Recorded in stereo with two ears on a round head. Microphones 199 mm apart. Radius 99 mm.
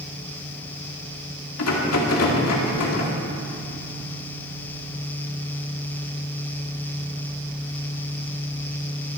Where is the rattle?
80° left, 2.5 m.